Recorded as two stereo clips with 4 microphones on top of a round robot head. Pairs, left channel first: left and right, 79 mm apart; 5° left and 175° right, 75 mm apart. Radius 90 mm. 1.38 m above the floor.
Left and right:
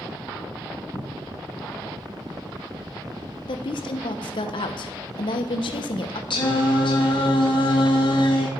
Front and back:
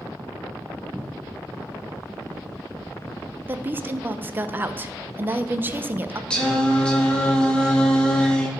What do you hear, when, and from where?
0.9 s a cupboard door: 80° left, 0.7 m
3.5 s a woman speaking: 120° left, 0.7 m
6.3 s singing: 85° left, 2.0 m